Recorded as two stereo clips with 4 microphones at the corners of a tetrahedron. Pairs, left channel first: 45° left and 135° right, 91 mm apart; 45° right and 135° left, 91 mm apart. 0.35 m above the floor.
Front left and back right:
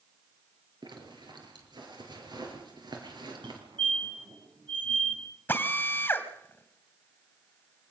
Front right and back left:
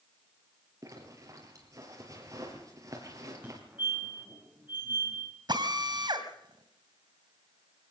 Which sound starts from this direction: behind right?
A fire alarm, at 3.4 s.